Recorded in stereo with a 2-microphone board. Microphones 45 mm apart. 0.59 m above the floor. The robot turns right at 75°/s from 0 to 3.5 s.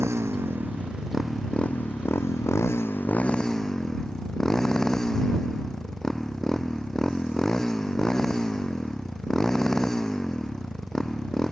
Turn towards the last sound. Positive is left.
turn(degrees=165)